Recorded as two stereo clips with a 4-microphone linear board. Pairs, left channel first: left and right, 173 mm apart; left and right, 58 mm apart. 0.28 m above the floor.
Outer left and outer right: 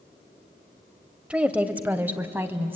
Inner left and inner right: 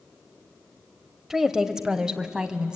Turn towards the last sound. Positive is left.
turn(degrees=-15)  # may be behind; listen again after turning